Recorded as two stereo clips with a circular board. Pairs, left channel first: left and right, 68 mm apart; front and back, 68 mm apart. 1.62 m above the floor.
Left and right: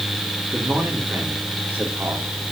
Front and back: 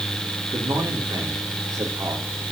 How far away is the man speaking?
About 4.5 m.